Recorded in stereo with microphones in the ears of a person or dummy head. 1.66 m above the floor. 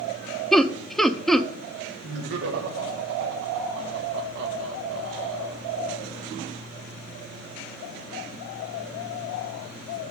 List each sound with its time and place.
0.5 s laughter: 5° left (ahead or behind), 0.7 m
2.0 s laughter: 65° right (ahead or behind), 1.6 m